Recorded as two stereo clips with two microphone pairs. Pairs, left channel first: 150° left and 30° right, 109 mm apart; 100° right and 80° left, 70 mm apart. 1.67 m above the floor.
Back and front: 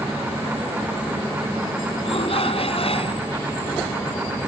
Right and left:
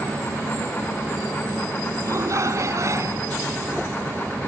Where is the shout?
125° left.